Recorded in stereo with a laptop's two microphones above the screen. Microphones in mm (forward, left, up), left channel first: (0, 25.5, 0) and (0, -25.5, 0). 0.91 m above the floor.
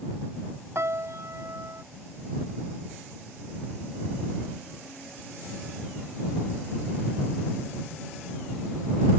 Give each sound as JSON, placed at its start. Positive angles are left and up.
{"t": 0.8, "sound": "a piano", "side_deg": -60}